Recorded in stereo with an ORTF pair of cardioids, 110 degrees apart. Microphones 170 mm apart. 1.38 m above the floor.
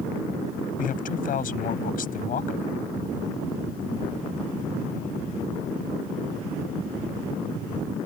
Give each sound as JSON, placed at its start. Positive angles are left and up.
{"t": 0.8, "sound": "a man speaking", "azimuth_deg": 55}